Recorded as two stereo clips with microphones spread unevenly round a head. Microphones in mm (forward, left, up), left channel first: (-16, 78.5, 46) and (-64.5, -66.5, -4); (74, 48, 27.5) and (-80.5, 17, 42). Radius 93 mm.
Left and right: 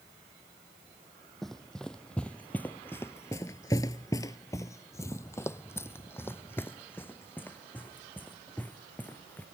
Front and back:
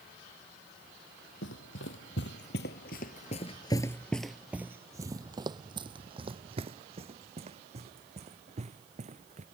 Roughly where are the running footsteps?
Ahead.